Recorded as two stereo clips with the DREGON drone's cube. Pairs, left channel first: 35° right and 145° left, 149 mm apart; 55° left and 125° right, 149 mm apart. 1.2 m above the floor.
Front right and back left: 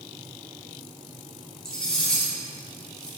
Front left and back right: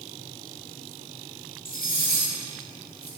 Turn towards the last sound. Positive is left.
turn(degrees=50)